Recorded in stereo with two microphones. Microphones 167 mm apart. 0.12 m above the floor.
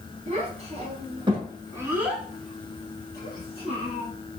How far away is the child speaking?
About 1.5 m.